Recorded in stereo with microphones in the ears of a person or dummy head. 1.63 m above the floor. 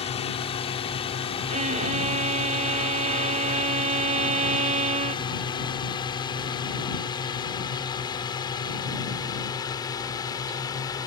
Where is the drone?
35° left (ahead or behind); by 11.1 s 20° left (ahead or behind).